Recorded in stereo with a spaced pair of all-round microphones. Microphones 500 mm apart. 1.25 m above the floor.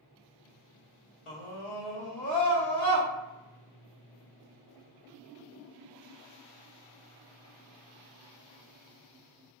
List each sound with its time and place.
1.3 s a scream: 80° left, 0.9 m; by 3.1 s 15° left (ahead or behind), 1.3 m